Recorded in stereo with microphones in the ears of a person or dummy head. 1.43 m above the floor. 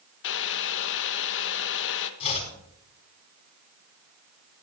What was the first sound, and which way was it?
Boiling, 65° left (ahead or behind).